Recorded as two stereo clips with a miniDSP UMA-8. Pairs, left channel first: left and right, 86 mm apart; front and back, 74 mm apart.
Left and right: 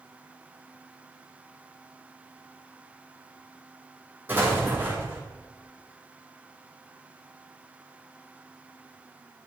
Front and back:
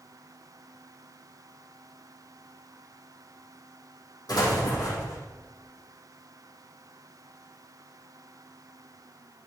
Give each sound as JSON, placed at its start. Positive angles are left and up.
{"t": 4.3, "sound": "an explosion", "azimuth_deg": -25, "distance_m": 4.0}